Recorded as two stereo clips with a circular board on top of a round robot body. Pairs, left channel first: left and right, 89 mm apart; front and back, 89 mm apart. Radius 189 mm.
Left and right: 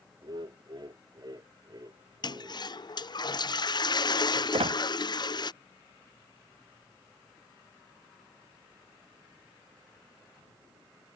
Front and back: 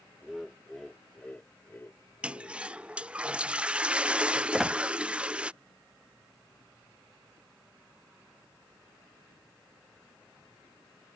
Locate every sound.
0.2 s laughter: 95° right; by 2.7 s 45° right
2.2 s a toilet flushing: 105° left
4.5 s a squeak: 95° right